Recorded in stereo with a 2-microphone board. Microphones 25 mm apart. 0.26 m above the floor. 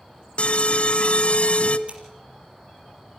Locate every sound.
0.4 s an alarm: 50° left (ahead or behind), 1.0 m
1.9 s scissors: 50° right (ahead or behind), 4.5 m